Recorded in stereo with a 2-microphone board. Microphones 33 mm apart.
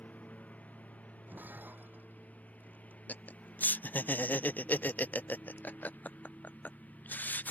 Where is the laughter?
65° left (ahead or behind).